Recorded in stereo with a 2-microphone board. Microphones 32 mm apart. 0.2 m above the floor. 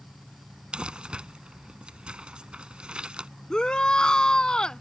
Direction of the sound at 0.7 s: 35° right (ahead or behind).